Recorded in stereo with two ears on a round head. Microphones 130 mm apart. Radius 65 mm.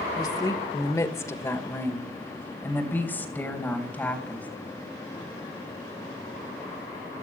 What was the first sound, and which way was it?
A woman speaking, 30° left (ahead or behind).